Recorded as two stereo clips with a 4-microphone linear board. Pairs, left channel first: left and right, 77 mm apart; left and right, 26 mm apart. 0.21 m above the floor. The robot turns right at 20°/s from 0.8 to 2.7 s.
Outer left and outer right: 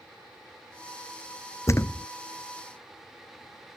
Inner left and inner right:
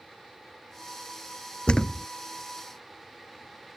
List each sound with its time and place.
1.7 s a thud: 40° left (ahead or behind); by 2.1 s 30° left (ahead or behind)